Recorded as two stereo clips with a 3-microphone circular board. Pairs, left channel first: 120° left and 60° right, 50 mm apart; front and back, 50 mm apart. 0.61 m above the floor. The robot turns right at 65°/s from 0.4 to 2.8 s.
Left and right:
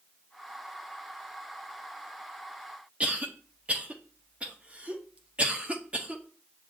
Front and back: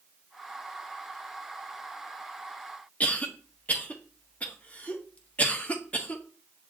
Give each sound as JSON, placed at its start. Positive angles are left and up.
{"t": 3.0, "sound": "a cough", "azimuth_deg": -25, "distance_m": 0.7}